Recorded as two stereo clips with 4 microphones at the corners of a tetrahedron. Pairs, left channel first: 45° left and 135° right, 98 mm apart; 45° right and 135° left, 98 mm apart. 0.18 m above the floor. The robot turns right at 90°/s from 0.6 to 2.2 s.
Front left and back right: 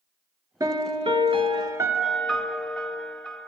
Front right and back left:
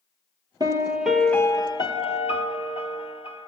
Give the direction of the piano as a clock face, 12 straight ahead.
6 o'clock.